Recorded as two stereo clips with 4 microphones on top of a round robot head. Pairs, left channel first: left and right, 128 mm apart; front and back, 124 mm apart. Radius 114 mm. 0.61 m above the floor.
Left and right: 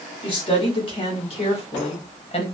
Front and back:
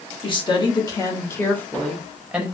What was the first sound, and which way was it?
A woman speaking, 40° left.